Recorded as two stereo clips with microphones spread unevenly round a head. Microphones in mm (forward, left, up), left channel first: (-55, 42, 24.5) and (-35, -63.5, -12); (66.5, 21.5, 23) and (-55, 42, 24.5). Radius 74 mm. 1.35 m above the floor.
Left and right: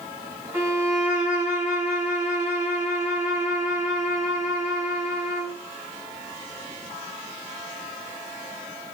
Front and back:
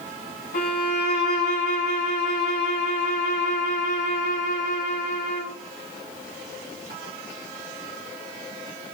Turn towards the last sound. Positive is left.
turn(degrees=0)